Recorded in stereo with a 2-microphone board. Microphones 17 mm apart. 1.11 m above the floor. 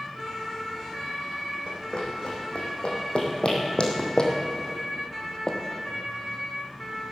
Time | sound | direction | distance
1.7 | running footsteps | 65° left (ahead or behind) | 4 m